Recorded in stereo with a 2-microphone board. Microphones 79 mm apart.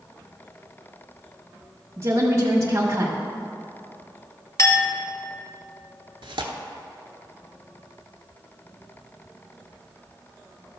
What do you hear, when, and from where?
2.0 s a woman speaking: 40° right (ahead or behind), 1.2 m
4.6 s a clink: 40° left (ahead or behind), 1.1 m
6.2 s tearing paper: 80° right, 0.9 m